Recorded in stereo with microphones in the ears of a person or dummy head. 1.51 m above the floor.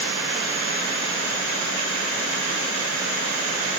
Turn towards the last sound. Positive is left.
No sound to turn to.